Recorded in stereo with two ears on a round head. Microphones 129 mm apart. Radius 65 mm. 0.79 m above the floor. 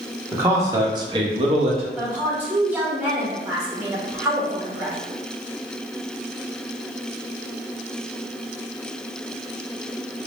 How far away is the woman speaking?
About 1.2 m.